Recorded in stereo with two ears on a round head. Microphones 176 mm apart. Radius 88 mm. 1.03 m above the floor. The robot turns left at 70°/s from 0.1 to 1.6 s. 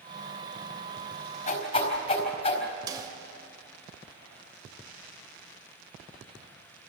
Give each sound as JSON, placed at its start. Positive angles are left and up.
{"t": 1.5, "sound": "a whoosh", "side_deg": 45, "distance_m": 4.5}
{"t": 2.9, "sound": "a snare drum", "side_deg": -20, "distance_m": 1.8}